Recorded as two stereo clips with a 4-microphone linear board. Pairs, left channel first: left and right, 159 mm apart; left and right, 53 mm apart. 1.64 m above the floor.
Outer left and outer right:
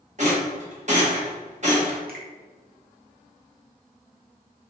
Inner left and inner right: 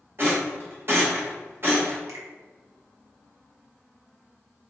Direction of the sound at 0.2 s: 45° right (ahead or behind).